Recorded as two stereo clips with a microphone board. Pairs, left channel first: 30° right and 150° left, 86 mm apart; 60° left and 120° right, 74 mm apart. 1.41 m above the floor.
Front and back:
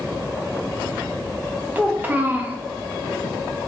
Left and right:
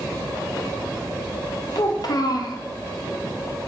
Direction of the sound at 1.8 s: 80° left.